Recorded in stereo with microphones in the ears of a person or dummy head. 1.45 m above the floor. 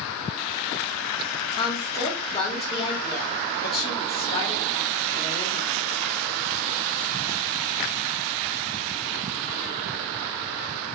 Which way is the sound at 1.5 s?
30° left (ahead or behind).